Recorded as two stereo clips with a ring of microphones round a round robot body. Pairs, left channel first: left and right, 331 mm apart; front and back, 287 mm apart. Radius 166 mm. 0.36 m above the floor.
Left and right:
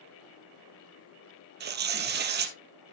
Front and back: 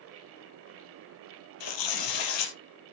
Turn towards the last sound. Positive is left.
turn(degrees=-30)